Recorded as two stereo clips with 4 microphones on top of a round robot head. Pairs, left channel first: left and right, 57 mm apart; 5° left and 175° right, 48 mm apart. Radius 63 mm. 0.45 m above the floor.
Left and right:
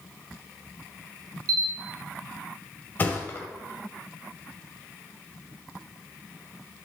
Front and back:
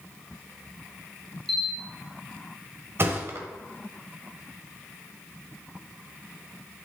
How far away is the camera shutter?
About 0.9 m.